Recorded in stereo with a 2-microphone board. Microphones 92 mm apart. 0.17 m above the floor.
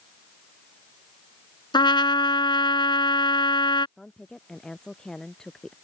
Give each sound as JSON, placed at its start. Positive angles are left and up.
{"t": 1.7, "sound": "a trumpet", "side_deg": 50}
{"t": 4.0, "sound": "a woman speaking", "side_deg": 5}